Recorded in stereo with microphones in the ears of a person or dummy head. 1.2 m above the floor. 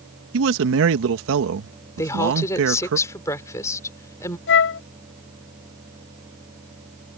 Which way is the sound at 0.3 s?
70° right (ahead or behind).